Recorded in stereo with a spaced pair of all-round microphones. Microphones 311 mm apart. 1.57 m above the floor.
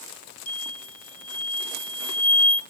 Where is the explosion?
50° left (ahead or behind), 1.7 m.